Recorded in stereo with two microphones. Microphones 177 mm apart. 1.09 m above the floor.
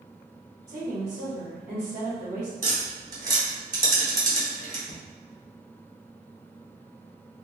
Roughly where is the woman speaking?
Right.